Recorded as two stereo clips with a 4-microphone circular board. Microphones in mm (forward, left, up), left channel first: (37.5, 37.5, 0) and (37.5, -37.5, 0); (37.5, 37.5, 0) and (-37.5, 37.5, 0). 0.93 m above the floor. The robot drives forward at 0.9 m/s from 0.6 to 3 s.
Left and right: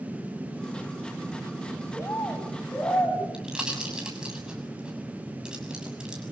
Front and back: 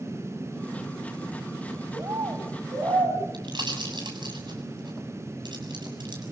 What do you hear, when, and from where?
1.9 s a bird: 145° left, 4 m; by 3.2 s 150° left, 4.5 m
3.3 s a pop: 170° right, 7 m